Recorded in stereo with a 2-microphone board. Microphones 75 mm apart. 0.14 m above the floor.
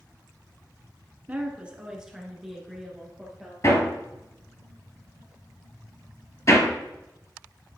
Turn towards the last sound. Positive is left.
turn(degrees=45)  # may be behind; listen again after turning